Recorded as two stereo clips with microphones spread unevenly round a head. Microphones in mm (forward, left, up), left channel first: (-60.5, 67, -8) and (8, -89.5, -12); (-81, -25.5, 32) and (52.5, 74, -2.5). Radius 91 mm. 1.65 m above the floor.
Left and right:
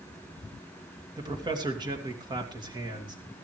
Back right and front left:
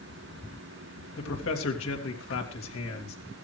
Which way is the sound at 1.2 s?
135° right.